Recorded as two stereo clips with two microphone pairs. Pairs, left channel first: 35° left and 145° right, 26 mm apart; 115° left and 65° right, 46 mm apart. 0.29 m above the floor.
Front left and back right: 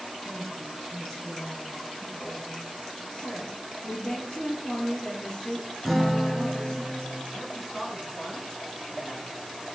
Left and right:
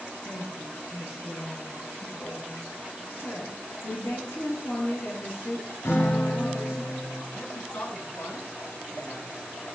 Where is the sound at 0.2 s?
100° left, 2 m; by 2.6 s 155° left, 2.5 m.